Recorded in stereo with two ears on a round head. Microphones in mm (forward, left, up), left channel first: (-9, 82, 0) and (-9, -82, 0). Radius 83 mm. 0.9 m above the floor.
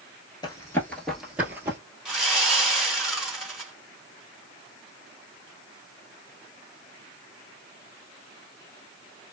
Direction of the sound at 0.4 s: 25° left (ahead or behind).